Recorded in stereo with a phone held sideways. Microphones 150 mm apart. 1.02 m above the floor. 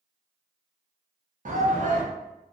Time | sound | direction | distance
1.4 | a shout | 60° right (ahead or behind) | 0.8 m